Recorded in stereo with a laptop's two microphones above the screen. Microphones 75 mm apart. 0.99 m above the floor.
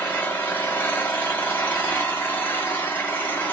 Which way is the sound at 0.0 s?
25° left (ahead or behind).